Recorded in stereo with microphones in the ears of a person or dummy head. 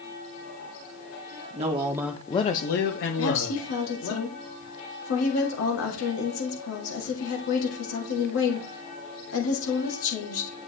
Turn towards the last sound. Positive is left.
turn(degrees=80)